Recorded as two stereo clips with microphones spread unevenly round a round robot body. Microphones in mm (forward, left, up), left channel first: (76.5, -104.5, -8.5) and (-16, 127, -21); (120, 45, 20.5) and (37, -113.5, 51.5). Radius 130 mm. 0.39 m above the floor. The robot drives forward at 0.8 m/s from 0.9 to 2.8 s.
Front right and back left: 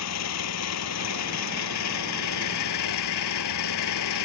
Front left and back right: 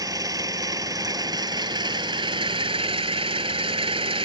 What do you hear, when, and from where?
0.0 s an engine running: 45° right; by 4.3 s 60° right